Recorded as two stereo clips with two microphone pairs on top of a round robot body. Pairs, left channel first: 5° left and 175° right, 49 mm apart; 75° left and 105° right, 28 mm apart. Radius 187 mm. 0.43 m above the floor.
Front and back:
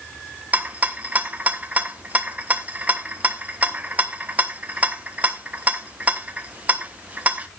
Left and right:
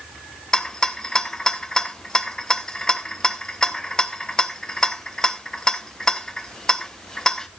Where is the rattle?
135° left, 1.3 m.